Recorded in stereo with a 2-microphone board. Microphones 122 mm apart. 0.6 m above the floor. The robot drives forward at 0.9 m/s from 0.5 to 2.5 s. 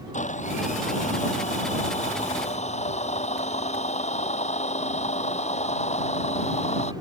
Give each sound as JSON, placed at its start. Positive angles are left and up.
{"t": 0.1, "sound": "a blender", "side_deg": 75}